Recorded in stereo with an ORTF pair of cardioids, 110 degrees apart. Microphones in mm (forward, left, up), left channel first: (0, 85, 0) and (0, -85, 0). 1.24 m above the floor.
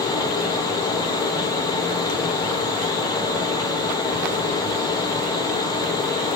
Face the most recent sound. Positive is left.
turn(degrees=25)